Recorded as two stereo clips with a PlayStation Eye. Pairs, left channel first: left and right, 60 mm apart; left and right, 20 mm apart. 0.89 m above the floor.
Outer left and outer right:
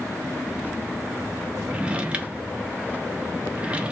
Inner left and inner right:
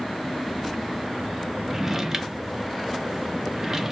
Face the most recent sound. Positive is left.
turn(degrees=-20)  # may be behind; listen again after turning